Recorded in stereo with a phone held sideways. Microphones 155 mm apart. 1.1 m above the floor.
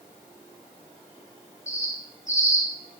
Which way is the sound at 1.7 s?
55° left (ahead or behind).